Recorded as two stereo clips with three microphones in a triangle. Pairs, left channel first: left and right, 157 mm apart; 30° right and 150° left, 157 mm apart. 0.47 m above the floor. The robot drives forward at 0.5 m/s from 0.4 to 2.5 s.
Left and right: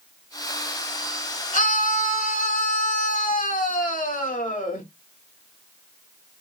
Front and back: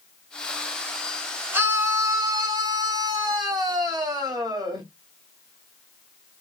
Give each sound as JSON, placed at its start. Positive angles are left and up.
{"t": 1.5, "sound": "a scream", "azimuth_deg": 75, "distance_m": 2.0}